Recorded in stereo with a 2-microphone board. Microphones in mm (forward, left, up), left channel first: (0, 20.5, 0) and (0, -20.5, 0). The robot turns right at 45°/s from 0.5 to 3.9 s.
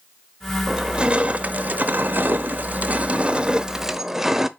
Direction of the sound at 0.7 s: 160° right.